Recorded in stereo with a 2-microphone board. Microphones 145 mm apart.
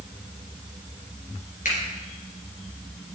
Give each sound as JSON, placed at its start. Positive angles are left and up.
{"t": 1.6, "sound": "a finger snap", "side_deg": 70, "distance_m": 3.5}